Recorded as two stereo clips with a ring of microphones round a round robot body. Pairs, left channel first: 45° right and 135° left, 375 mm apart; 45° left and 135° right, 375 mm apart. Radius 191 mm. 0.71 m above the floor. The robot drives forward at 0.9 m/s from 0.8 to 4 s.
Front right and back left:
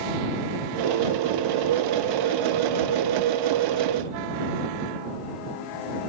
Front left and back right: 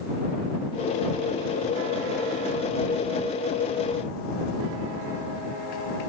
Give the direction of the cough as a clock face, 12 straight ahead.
I don't hear a cough.